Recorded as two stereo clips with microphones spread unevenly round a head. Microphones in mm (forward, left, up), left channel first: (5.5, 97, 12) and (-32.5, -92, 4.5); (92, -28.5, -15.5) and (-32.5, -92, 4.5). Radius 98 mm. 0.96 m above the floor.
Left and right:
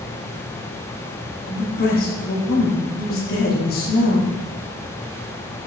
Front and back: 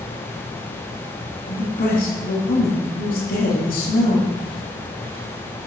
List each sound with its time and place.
1.5 s a man speaking: 35° left, 1.8 m